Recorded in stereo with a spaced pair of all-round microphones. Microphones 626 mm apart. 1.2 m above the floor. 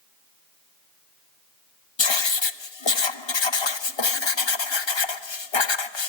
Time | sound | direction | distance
2.0 | writing | 45° left (ahead or behind) | 0.9 m